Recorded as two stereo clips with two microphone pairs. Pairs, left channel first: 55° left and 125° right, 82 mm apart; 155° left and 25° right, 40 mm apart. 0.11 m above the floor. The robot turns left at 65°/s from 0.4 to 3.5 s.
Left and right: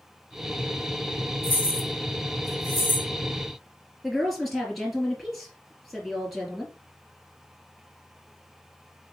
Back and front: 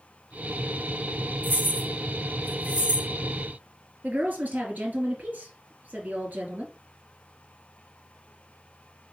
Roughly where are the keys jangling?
Ahead.